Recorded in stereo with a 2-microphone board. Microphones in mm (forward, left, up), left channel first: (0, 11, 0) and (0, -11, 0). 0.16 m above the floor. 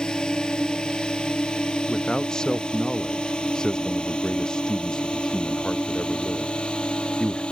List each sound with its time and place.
0.0 s a drone: 35° left (ahead or behind); by 7.5 s 50° left (ahead or behind)
1.9 s a man speaking: 30° left (ahead or behind)